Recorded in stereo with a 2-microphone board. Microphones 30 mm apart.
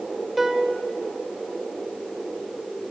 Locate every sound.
0.4 s a piano: 5° right (ahead or behind), 1.4 m